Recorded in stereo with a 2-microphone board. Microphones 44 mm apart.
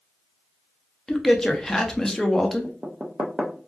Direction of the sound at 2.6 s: 20° right (ahead or behind).